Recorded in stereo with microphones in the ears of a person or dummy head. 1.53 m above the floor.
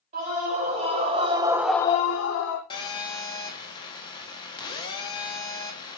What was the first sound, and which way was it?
A scream, 40° right (ahead or behind).